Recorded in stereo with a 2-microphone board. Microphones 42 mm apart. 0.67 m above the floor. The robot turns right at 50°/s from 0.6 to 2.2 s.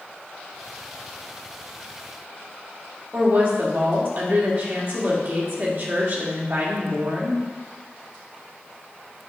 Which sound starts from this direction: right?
A woman speaking, at 3.1 s.